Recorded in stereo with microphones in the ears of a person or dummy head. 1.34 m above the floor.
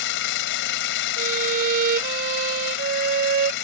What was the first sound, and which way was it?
An engine running, 65° left (ahead or behind).